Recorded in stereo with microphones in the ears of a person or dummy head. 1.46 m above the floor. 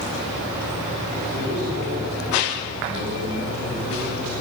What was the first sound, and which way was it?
A man speaking, 45° right (ahead or behind).